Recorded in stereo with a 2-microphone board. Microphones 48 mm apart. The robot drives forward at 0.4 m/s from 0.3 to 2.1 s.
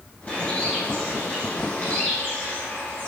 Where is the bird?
35° left (ahead or behind), 9 m; by 3.1 s 30° left (ahead or behind), 9.5 m.